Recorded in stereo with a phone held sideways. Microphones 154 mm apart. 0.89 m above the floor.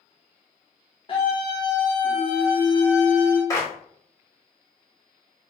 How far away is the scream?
About 0.6 m.